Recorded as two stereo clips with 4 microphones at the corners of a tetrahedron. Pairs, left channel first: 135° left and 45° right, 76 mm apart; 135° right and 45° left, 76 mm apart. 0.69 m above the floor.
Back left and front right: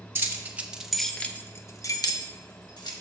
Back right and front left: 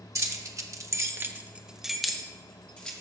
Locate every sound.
0.1 s keys jangling: 5° left, 0.8 m; by 2.9 s 150° left, 1.1 m